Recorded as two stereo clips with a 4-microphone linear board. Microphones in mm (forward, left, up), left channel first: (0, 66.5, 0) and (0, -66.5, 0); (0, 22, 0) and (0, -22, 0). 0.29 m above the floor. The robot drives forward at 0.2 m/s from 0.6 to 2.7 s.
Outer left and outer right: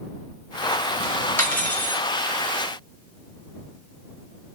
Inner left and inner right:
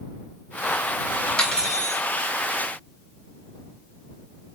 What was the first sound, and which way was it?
Cutlery clinking, 20° left (ahead or behind).